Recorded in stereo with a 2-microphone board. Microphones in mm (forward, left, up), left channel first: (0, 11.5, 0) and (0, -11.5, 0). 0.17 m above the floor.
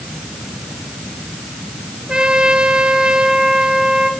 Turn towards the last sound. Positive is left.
turn(degrees=-35)  # may be behind; listen again after turning